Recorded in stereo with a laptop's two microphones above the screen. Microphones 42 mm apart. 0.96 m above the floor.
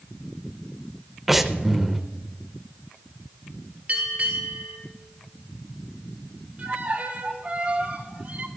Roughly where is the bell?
Right.